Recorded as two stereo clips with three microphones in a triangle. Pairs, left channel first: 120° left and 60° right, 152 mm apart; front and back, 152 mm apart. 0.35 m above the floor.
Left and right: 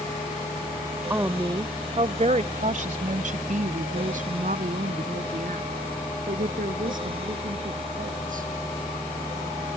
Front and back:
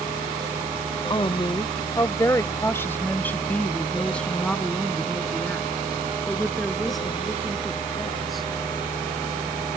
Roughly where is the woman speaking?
Ahead.